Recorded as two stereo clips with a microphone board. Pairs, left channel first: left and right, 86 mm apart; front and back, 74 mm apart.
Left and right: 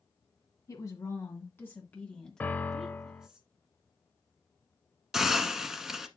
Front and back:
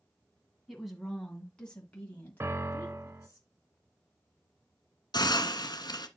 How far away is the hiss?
About 0.9 m.